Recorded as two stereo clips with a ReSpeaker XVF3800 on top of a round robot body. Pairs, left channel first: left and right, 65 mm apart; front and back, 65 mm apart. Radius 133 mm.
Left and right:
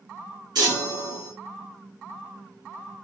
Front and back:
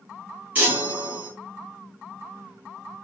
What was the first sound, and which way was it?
A chime, 120° right.